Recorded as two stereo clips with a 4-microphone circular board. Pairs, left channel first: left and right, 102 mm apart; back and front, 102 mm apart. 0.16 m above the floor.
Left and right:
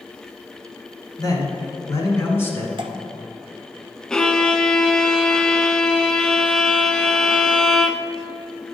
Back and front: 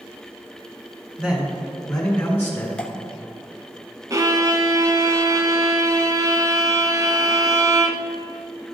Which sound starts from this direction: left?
A man speaking, at 1.2 s.